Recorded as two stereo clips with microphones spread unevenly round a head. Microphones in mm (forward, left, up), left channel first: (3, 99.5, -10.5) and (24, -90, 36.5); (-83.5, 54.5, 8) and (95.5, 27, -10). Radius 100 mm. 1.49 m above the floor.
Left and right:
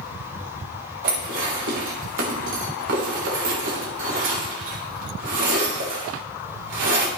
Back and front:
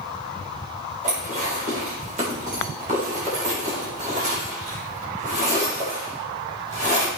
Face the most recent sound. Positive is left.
turn(degrees=-65)